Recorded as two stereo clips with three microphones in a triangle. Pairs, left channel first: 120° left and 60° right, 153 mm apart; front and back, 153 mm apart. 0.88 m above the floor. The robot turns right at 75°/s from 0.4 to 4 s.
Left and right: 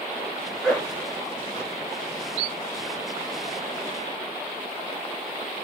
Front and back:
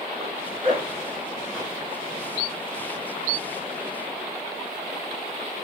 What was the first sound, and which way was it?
A zipper, 170° left.